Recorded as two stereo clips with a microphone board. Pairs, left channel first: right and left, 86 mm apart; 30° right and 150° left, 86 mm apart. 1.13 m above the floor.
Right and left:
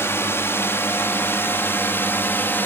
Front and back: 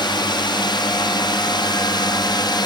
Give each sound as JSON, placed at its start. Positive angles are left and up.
{"t": 0.0, "sound": "a drone", "azimuth_deg": -35}